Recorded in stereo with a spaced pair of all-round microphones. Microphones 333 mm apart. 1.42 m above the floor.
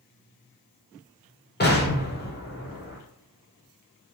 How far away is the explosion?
About 0.7 m.